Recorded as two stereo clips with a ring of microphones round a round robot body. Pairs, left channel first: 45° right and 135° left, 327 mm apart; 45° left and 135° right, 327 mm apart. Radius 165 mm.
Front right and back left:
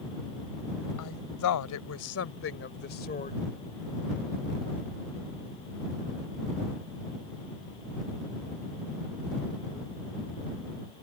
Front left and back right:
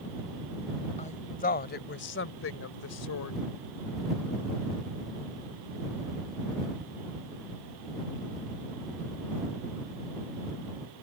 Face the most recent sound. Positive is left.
turn(degrees=20)